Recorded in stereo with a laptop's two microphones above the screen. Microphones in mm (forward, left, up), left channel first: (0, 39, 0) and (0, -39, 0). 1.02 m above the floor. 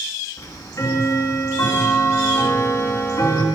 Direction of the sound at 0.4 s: 40° left (ahead or behind).